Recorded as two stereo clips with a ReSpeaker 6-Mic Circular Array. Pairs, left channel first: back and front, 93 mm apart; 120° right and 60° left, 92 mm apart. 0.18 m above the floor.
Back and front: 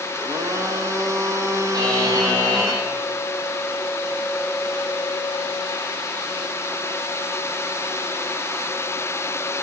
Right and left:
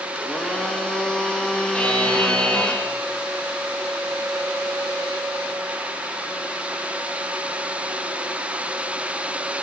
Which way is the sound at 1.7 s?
45° right.